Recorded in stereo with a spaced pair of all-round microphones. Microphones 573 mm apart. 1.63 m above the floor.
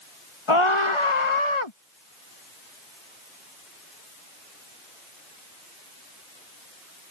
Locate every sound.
0.5 s a scream: 55° left (ahead or behind)